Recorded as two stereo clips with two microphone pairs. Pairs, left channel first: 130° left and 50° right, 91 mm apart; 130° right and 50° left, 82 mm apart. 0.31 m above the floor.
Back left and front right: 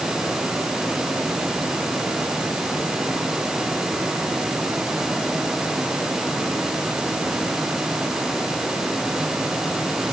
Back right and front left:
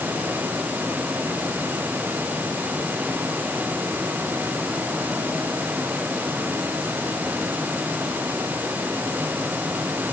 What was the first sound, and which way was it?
Only background noise.